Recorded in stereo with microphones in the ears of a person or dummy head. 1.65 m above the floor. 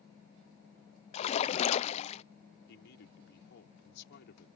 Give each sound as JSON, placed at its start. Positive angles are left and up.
{"t": 1.1, "sound": "a splash", "side_deg": 35}
{"t": 2.7, "sound": "a man speaking", "side_deg": 60}